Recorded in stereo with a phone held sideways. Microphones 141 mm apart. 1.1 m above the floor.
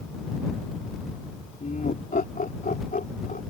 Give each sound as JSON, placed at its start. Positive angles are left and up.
{"t": 1.6, "sound": "laughter", "side_deg": 80}